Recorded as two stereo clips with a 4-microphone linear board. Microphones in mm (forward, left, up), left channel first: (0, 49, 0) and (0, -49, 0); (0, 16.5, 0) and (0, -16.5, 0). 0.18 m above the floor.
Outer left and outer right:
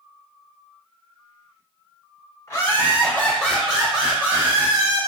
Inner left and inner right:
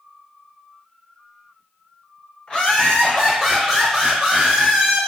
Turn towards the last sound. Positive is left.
turn(degrees=-35)  # may be behind; listen again after turning